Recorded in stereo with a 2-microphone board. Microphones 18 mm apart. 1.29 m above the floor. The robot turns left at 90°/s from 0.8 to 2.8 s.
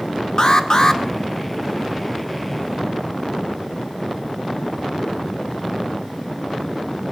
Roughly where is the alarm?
Left.